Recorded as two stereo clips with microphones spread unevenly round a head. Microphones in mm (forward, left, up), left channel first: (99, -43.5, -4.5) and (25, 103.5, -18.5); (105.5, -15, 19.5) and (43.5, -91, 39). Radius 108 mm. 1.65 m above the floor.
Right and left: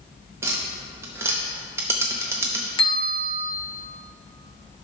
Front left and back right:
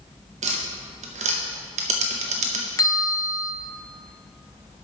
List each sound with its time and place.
0.4 s tapping: 165° right, 0.5 m
2.8 s a bell: 5° right, 1.2 m